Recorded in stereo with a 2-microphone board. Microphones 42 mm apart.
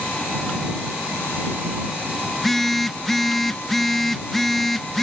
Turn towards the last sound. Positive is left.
turn(degrees=5)  # may be behind; listen again after turning